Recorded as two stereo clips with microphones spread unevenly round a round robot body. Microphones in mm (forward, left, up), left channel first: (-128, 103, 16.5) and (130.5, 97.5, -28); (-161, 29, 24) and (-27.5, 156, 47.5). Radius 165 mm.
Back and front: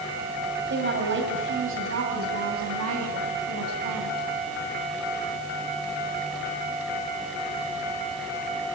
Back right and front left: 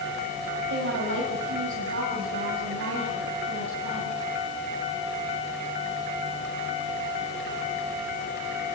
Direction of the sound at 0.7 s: 45° left.